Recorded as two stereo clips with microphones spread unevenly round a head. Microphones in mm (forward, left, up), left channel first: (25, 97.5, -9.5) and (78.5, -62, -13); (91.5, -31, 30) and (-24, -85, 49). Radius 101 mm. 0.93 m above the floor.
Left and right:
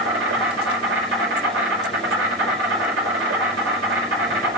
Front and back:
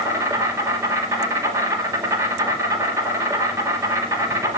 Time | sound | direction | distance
0.0 | an insect | 90° right | 5 m